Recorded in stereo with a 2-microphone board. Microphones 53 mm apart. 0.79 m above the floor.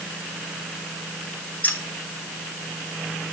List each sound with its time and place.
1.6 s keys jangling: 30° left (ahead or behind), 2.5 m